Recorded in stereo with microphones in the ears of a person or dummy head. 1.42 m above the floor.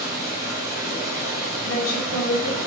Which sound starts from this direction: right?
Running water, at 0.0 s.